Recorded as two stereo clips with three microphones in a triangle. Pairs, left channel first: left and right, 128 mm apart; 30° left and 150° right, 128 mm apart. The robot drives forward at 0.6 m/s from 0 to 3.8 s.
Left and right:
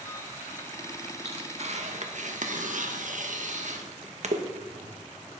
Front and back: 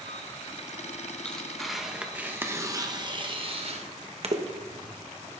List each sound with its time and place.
1.2 s tearing paper: 50° right, 1.6 m; by 5.0 s 115° right, 1.4 m